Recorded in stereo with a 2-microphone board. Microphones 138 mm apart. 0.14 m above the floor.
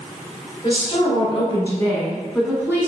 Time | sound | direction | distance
0.6 | a woman speaking | 40° left (ahead or behind) | 1.9 m